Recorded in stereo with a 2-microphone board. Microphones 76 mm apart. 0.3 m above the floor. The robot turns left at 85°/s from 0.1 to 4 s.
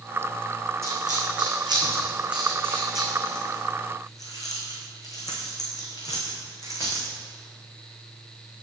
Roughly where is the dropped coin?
Right.